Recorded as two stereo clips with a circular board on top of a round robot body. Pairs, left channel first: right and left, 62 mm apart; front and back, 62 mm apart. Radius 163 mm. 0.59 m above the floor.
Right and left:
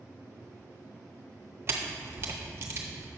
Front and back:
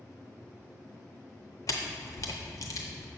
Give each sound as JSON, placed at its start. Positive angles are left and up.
{"t": 1.7, "sound": "a camera shutter", "azimuth_deg": 35, "distance_m": 0.6}